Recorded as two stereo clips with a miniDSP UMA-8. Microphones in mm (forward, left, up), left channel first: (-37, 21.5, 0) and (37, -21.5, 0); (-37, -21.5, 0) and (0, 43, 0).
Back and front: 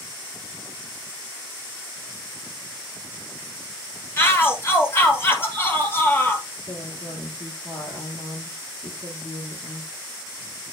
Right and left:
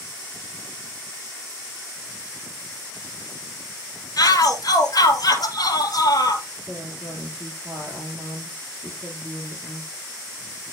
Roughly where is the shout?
Behind right.